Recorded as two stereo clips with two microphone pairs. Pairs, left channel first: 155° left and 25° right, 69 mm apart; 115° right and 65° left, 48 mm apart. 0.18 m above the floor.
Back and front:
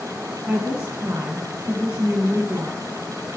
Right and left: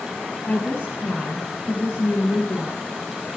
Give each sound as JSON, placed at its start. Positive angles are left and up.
{"t": 0.5, "sound": "a woman speaking", "azimuth_deg": -60, "distance_m": 1.5}